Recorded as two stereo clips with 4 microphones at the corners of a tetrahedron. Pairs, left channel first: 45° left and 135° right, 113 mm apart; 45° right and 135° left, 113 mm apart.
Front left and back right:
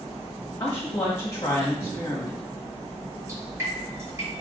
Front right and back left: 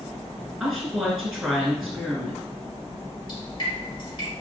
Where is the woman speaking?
65° left, 1.1 m.